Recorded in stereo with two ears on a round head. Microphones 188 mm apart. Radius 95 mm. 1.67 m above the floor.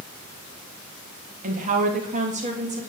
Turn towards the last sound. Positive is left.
turn(degrees=-35)  # may be behind; listen again after turning